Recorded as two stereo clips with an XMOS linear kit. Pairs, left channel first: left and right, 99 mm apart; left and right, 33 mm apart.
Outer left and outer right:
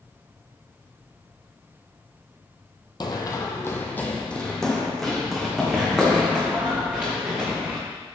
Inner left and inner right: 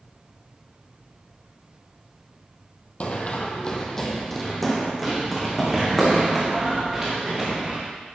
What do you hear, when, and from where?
3.0 s running footsteps: 45° left (ahead or behind), 1.1 m; by 7.8 s 15° right (ahead or behind), 4 m